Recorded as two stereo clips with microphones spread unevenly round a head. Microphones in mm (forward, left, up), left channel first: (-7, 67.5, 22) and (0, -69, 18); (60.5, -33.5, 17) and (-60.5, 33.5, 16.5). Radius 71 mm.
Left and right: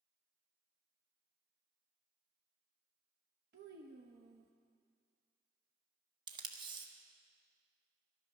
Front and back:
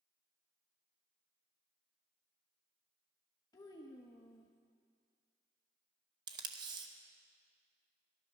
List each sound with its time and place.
3.5 s a child speaking: 95° right, 0.8 m
6.3 s tape being pulled: 145° right, 1.0 m